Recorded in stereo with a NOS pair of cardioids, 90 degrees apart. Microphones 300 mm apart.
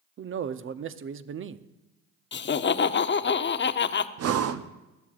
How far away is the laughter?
About 0.8 m.